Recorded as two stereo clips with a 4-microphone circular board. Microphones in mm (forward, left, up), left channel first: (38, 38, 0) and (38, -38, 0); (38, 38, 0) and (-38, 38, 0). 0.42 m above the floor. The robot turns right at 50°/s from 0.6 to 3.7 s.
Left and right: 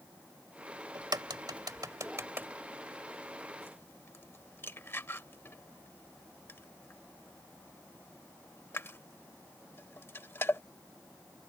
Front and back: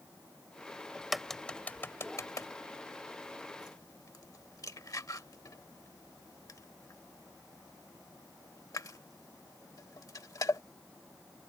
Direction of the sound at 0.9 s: 105° right.